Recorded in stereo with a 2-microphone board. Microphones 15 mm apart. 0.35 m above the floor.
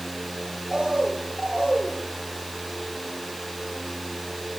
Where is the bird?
80° right, 4.5 m.